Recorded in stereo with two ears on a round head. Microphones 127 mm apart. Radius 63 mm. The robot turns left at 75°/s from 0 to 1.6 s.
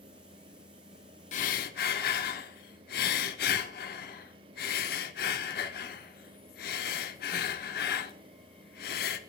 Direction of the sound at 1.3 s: 55° left (ahead or behind).